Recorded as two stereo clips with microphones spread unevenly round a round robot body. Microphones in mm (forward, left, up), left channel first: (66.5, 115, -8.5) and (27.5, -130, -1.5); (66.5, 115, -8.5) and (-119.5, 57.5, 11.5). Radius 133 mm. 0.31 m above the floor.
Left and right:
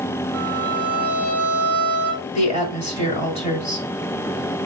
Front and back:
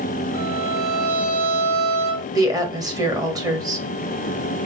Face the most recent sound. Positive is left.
turn(degrees=130)